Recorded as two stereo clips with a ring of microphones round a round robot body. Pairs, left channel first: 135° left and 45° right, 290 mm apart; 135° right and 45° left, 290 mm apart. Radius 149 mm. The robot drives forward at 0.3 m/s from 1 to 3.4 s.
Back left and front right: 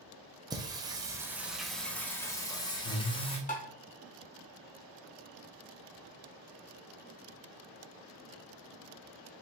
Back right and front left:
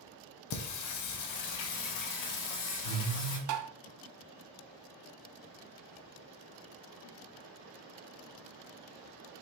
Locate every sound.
0.5 s singing: 120° right, 0.7 m; by 3.4 s 155° right, 1.2 m
3.5 s tapping: 70° left, 0.7 m